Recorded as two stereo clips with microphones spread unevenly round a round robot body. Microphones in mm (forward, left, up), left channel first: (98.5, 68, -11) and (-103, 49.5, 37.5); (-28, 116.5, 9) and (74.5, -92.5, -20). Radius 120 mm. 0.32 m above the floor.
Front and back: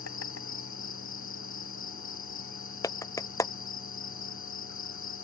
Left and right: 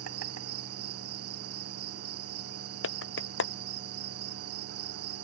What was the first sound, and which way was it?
An insect, 35° right.